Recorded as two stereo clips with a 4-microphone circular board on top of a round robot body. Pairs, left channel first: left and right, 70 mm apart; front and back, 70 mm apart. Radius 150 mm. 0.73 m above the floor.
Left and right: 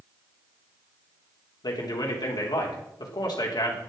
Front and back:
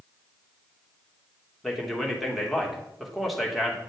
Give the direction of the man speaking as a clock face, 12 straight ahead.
9 o'clock.